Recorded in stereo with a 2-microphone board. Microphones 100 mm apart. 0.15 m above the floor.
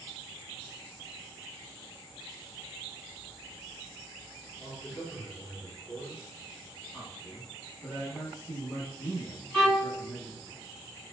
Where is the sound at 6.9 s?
15° left (ahead or behind), 1.1 m.